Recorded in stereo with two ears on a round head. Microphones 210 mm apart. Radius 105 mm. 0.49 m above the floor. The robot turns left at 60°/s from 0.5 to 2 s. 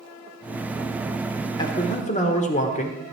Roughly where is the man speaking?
Centre.